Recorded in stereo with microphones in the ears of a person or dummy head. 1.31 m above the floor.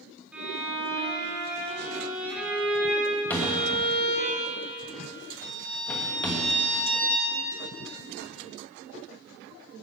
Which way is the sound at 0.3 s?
10° right (ahead or behind).